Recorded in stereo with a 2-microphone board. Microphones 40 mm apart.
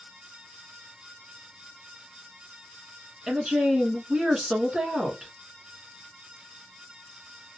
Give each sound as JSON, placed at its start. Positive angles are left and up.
{"t": 3.3, "sound": "a woman speaking", "side_deg": -15, "distance_m": 1.2}